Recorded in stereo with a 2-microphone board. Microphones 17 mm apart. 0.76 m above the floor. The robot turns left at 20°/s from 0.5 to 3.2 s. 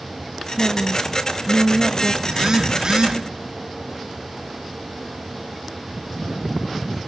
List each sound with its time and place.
0.6 s a woman speaking: 20° left (ahead or behind), 0.9 m; by 2.1 s 15° left (ahead or behind), 0.9 m
2.2 s a phone buzzing: 35° right (ahead or behind), 1.6 m; by 3.2 s 50° right (ahead or behind), 1.6 m